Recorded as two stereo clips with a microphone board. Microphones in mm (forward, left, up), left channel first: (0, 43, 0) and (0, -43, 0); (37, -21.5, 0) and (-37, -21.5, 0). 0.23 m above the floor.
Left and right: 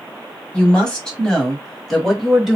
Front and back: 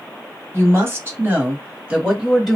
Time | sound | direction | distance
0.5 | a woman speaking | 160° left | 1.7 m